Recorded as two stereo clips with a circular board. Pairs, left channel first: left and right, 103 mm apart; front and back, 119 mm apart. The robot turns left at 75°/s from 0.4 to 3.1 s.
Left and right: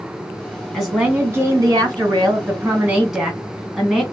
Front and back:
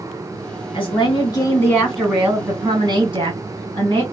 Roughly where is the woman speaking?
Ahead.